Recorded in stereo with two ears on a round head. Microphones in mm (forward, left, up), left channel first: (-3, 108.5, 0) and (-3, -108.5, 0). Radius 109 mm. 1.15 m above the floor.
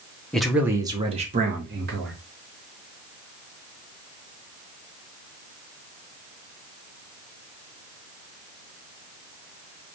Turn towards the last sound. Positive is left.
turn(degrees=-50)  # may be behind; listen again after turning